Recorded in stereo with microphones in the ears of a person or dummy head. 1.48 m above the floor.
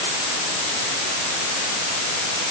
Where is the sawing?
I don't hear sawing.